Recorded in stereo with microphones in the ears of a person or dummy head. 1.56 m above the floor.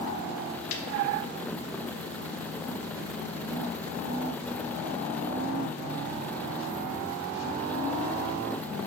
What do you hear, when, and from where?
0.7 s a snare drum: 75° left (ahead or behind), 1.2 m